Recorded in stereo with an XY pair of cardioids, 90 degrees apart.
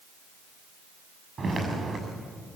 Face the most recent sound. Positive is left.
turn(degrees=-45)